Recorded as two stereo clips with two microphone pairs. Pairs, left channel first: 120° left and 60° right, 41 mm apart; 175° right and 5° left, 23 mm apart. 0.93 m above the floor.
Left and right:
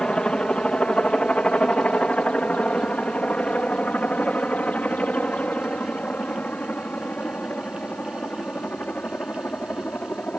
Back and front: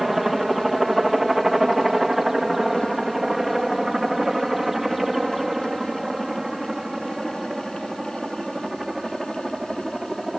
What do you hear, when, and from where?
0.0 s a helicopter: 80° left; by 10.4 s 85° left